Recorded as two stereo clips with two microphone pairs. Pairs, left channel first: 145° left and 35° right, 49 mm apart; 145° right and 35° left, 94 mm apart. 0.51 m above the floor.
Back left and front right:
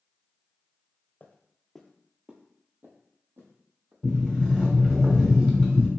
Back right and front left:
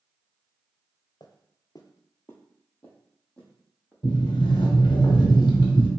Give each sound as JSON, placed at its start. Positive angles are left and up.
{"t": 1.2, "sound": "footsteps", "azimuth_deg": -165, "distance_m": 0.7}
{"t": 4.0, "sound": "a sliding door", "azimuth_deg": -115, "distance_m": 1.2}